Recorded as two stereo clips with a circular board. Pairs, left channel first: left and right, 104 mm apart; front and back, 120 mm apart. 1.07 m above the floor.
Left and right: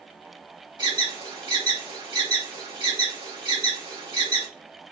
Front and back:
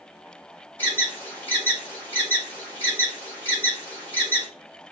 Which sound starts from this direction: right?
An alarm, at 0.8 s.